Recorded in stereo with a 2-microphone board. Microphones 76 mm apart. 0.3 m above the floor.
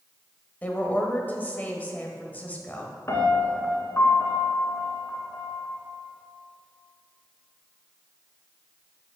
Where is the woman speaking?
20° left (ahead or behind), 1.2 m.